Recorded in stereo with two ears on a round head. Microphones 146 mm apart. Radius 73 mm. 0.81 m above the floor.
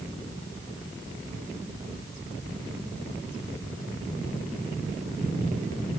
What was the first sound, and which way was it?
Only background noise.